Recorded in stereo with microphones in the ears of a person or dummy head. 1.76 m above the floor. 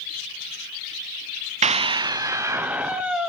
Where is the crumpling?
I don't hear crumpling.